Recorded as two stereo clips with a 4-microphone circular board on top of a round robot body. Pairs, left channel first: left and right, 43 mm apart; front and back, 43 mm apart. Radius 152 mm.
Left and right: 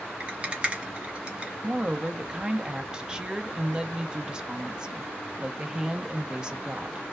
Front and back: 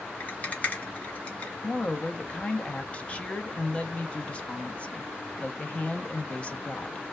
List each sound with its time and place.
0.2 s a rattle: 35° right, 1.4 m
1.6 s a woman speaking: 30° right, 0.8 m